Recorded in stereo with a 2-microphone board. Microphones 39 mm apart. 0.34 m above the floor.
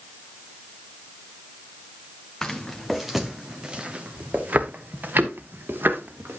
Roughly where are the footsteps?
Centre.